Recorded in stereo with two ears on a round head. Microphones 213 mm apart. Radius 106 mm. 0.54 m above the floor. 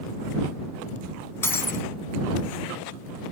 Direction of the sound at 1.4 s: 10° left (ahead or behind).